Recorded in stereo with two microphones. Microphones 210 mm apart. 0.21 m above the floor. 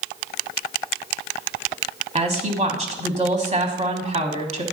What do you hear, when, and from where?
2.1 s a woman speaking: 30° right (ahead or behind), 1.3 m